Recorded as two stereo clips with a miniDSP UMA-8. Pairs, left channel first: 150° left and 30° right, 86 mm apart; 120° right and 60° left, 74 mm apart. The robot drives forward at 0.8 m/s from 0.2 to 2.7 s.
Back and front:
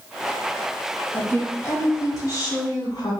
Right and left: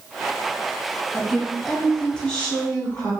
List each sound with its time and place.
1.1 s a woman speaking: 145° left, 1.3 m; by 3.1 s 170° left, 2 m